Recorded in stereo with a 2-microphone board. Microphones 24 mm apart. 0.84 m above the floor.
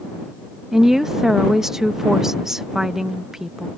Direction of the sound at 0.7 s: 20° right (ahead or behind).